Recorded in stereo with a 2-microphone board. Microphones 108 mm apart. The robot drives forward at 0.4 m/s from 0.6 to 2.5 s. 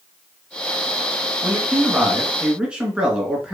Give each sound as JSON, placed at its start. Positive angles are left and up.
{"t": 1.4, "sound": "a man speaking", "side_deg": -10, "distance_m": 1.3}